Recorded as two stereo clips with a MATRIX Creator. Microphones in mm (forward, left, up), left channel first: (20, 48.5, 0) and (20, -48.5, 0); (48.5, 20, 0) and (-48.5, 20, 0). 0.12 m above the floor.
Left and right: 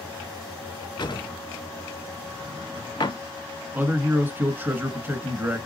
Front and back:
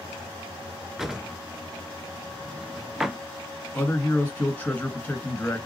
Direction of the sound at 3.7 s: 45° right.